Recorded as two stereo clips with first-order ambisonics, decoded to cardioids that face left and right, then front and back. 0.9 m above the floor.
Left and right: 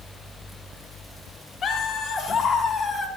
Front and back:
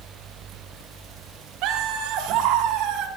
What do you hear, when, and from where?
1.6 s laughter: 150° left, 3.5 m; by 3.1 s 160° left, 2.5 m